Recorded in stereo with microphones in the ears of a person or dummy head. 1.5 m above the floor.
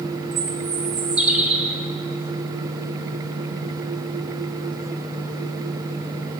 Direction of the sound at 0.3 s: 5° right (ahead or behind).